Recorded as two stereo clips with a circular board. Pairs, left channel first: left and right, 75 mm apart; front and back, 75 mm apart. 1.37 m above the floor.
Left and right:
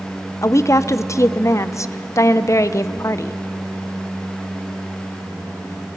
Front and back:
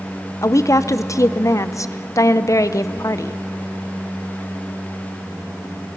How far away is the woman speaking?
About 0.6 m.